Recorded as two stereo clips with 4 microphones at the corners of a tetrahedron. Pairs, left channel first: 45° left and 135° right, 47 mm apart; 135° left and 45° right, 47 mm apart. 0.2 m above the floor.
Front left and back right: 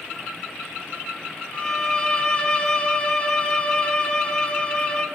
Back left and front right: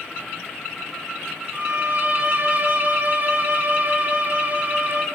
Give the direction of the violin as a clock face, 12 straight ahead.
12 o'clock.